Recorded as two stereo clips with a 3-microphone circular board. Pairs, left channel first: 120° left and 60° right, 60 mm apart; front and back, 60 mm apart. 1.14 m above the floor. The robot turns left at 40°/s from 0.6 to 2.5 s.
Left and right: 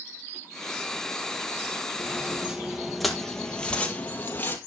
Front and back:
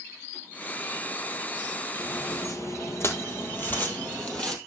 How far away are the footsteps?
About 2 m.